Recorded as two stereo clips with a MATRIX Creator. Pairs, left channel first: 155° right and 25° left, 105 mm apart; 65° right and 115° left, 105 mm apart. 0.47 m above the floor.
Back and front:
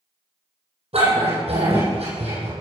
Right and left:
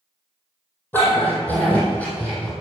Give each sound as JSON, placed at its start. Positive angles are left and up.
{"t": 0.9, "sound": "a dog barking", "azimuth_deg": 5, "distance_m": 6.5}